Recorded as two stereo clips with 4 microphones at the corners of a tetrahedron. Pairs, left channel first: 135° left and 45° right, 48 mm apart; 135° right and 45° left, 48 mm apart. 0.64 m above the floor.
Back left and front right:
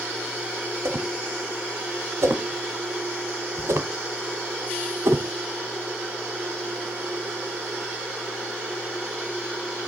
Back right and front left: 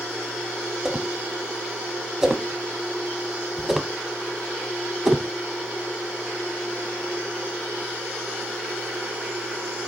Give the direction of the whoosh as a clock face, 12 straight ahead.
1 o'clock.